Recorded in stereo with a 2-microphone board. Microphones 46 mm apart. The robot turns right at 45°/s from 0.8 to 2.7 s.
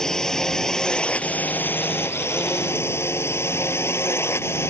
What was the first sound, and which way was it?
A drone, 15° left.